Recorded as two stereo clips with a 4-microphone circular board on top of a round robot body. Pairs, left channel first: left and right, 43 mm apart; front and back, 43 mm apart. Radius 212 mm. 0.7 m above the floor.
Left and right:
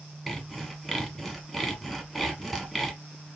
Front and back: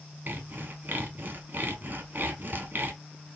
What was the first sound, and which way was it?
Sawing, straight behind.